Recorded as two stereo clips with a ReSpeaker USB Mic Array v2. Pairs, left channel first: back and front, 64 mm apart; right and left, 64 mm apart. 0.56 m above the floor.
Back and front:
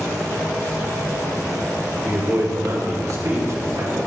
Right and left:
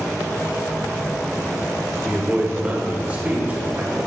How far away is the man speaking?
About 1.7 m.